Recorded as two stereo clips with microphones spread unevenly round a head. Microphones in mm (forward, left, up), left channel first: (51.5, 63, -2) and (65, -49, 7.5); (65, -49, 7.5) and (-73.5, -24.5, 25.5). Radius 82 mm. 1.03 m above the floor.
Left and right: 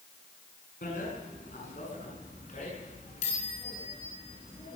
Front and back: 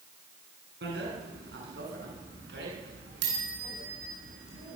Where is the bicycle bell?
140° left, 8 m; by 4.8 s 155° left, 10 m.